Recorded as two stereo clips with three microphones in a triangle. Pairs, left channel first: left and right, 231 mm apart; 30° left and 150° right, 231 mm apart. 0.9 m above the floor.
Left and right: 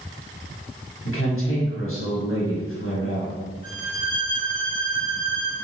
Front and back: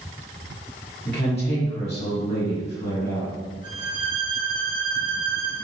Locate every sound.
1.1 s a woman speaking: 90° left, 1.5 m
3.6 s a violin: 145° left, 1.0 m